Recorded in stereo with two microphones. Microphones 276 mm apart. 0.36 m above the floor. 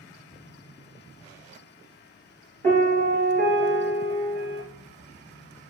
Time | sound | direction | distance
2.6 | a piano | 30° right (ahead or behind) | 1.5 m